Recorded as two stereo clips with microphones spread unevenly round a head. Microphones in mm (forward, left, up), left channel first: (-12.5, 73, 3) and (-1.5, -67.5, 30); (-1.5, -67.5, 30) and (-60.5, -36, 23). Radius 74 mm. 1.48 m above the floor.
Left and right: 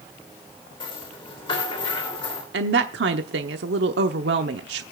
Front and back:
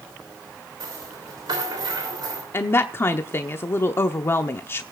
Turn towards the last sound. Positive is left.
turn(degrees=-85)